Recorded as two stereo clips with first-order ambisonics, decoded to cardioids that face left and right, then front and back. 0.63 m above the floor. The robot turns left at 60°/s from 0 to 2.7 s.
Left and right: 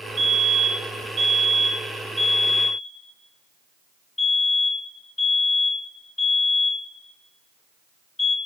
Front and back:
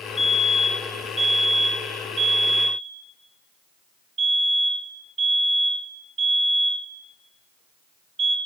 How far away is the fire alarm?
About 2.0 m.